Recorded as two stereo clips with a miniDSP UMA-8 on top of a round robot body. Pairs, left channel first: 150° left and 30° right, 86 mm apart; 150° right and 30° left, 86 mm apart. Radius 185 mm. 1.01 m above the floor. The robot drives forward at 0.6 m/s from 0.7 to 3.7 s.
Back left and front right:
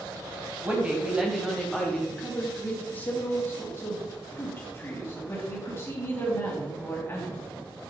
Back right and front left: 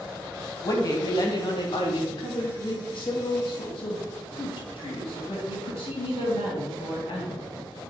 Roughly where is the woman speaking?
Right.